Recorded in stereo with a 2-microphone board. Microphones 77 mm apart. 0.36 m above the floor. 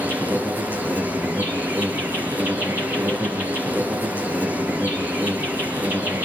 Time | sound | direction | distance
0.0 | an insect | 25° right (ahead or behind) | 7.5 m